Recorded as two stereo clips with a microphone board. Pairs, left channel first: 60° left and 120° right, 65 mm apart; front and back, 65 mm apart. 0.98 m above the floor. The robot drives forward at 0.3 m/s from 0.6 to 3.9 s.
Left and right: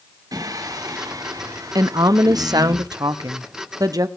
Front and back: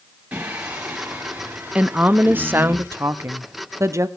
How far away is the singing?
About 4 m.